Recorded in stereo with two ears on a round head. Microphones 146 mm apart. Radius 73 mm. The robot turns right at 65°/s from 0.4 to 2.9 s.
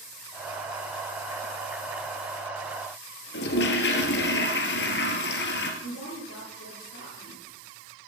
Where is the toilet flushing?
75° left (ahead or behind), 2.5 m.